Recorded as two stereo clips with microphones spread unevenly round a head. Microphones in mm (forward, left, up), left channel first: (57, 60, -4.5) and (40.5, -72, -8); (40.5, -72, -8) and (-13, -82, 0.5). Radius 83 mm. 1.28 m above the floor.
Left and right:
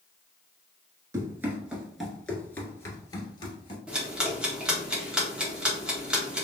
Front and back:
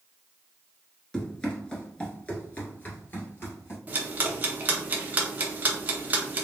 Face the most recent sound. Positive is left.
turn(degrees=180)